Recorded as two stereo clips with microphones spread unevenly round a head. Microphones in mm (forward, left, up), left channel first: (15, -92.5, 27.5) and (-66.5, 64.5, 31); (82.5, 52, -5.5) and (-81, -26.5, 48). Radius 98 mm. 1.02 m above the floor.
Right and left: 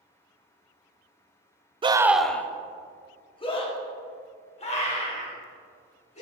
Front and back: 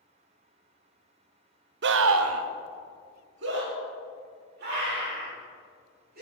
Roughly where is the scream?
Behind.